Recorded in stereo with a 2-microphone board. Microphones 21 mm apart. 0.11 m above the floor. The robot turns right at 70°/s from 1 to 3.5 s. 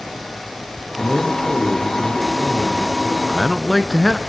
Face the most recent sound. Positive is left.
turn(degrees=15)  # may be behind; listen again after turning